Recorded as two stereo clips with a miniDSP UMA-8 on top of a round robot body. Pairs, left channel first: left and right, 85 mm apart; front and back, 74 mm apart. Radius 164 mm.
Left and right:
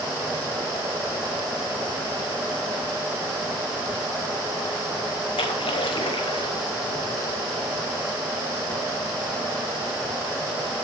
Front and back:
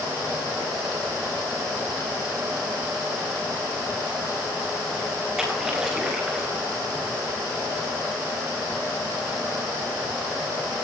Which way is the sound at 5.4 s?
95° left.